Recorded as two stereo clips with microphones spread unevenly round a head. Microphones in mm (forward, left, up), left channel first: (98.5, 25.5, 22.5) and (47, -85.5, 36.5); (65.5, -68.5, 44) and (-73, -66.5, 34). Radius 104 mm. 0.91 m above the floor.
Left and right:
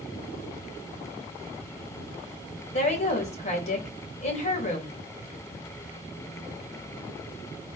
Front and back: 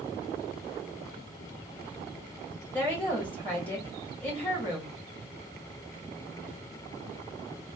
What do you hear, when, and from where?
2.7 s a woman speaking: 80° left, 1.8 m